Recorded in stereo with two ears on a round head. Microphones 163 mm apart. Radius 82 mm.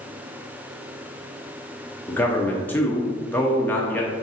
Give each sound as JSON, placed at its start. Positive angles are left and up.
{"t": 2.1, "sound": "a man speaking", "side_deg": 10, "distance_m": 0.6}